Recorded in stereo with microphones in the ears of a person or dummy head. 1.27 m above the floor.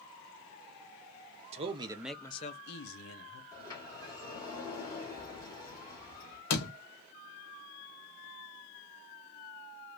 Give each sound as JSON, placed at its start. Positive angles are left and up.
{"t": 1.5, "sound": "a man speaking", "side_deg": -35, "distance_m": 0.8}
{"t": 3.5, "sound": "a sliding door", "side_deg": 20, "distance_m": 1.7}
{"t": 6.5, "sound": "a door slam", "side_deg": 60, "distance_m": 1.2}